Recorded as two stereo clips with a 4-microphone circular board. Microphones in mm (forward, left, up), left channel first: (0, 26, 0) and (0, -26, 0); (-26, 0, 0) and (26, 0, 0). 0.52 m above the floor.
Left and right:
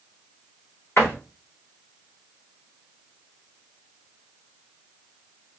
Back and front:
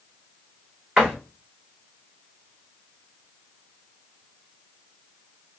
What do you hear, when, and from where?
1.0 s a door slam: 70° left, 1.7 m